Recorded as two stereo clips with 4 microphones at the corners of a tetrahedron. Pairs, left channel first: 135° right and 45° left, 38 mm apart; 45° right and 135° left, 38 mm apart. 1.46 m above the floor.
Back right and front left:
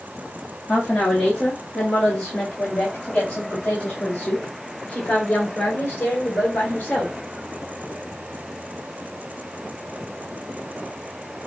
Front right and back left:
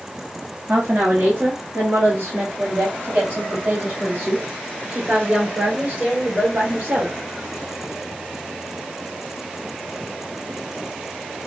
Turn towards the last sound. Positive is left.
turn(degrees=175)